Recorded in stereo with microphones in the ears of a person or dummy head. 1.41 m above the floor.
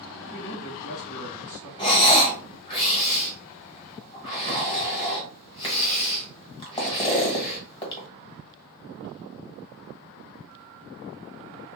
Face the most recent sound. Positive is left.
turn(degrees=25)  # may be behind; listen again after turning